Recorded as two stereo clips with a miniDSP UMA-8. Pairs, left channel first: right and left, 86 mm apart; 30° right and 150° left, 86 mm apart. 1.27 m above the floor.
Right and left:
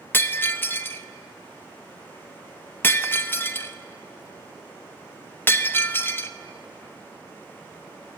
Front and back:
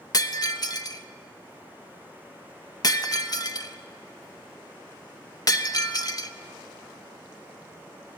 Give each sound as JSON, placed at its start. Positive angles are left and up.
{"t": 0.1, "sound": "breaking glass", "azimuth_deg": -35, "distance_m": 0.7}